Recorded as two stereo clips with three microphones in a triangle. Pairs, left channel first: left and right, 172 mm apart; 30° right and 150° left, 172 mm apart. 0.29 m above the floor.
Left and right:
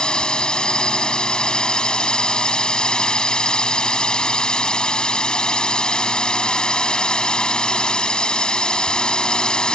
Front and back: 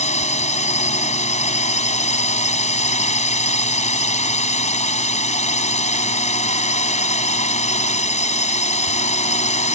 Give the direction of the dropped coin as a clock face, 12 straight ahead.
I don't hear a dropped coin.